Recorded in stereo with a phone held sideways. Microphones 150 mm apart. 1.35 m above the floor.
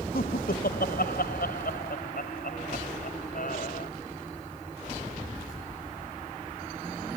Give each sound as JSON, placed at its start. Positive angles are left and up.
{"t": 0.1, "sound": "laughter", "side_deg": 85}